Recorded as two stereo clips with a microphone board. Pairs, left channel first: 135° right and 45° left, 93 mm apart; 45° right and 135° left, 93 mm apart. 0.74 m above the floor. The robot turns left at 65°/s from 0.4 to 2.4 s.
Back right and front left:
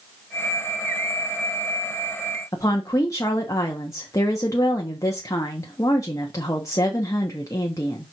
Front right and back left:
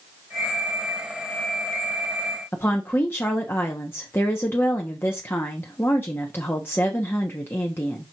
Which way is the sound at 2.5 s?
100° right.